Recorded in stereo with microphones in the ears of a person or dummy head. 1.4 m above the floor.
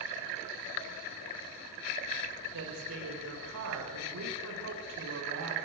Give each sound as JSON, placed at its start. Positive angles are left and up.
{"t": 2.5, "sound": "a woman speaking", "side_deg": -80, "distance_m": 4.5}